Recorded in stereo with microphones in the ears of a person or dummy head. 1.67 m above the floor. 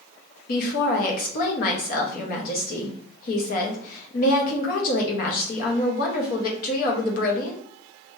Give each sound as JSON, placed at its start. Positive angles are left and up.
{"t": 0.5, "sound": "a woman speaking", "side_deg": 55, "distance_m": 1.0}